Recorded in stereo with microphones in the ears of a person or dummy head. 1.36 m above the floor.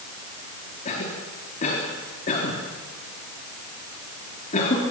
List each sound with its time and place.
0.8 s a cough: 45° left (ahead or behind), 3.5 m